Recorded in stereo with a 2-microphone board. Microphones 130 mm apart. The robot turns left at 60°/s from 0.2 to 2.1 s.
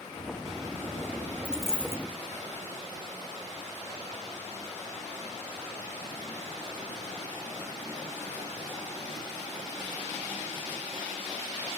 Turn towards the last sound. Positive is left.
turn(degrees=150)